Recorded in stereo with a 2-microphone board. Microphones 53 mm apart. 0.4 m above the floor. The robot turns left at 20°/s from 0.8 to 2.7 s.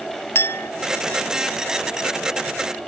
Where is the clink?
50° left (ahead or behind).